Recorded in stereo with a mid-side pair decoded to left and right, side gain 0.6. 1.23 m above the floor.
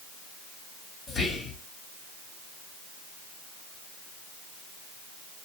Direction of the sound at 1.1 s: 40° left.